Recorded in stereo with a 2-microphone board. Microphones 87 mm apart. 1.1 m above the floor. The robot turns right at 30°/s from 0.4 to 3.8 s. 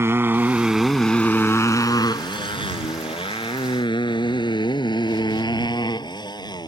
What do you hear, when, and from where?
0.0 s a motorcycle: 30° right (ahead or behind); by 6.7 s 50° left (ahead or behind)